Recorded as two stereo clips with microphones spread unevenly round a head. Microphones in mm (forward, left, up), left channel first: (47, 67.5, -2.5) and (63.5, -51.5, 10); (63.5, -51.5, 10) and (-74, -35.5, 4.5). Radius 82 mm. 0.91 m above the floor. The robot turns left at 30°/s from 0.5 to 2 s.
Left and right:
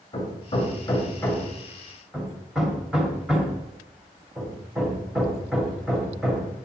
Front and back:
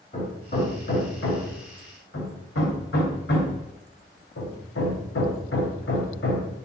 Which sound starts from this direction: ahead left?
Hammering, at 0.1 s.